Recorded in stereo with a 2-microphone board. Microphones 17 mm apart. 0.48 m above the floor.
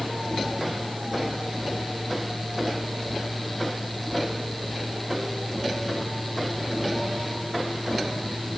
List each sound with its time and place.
Only background noise.